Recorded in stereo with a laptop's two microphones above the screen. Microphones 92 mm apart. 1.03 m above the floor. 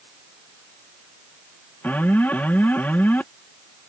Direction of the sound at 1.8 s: 20° left (ahead or behind).